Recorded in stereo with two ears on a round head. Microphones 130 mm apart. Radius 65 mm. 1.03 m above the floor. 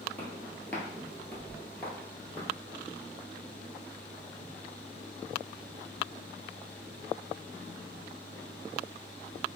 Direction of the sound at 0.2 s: 10° left (ahead or behind).